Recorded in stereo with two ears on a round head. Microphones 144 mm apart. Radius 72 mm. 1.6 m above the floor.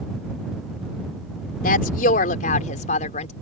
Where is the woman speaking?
60° left (ahead or behind); by 3.3 s 45° left (ahead or behind).